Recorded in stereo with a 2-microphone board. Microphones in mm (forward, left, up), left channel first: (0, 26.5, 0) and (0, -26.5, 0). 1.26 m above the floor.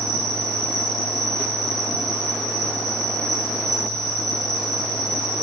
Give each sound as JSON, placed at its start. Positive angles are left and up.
{"t": 0.0, "sound": "an insect", "side_deg": -70, "distance_m": 6.0}